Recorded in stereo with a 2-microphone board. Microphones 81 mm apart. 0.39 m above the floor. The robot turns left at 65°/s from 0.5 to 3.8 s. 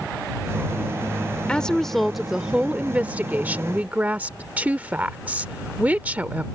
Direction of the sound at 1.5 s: 15° left (ahead or behind).